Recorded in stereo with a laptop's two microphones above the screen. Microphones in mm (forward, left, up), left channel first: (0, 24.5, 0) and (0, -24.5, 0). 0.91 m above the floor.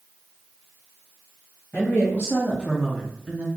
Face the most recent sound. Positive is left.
turn(degrees=-35)  # may be behind; listen again after turning